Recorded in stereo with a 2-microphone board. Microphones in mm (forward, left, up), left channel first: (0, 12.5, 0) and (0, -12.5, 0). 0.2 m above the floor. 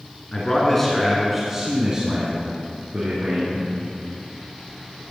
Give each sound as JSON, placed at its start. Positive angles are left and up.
{"t": 0.3, "sound": "a man speaking", "side_deg": 20, "distance_m": 3.0}